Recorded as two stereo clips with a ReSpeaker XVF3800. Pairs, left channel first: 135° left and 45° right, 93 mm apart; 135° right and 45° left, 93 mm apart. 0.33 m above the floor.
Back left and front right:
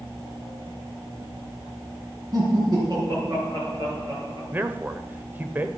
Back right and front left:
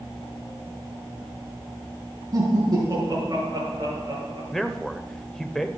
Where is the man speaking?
60° right, 0.9 m.